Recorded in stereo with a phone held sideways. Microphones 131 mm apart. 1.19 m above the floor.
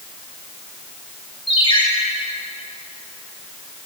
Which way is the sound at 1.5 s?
40° left (ahead or behind).